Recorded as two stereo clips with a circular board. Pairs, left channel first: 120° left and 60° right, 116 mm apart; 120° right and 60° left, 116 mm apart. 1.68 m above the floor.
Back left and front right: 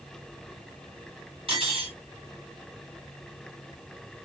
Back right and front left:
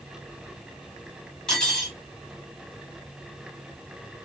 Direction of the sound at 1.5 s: 35° right.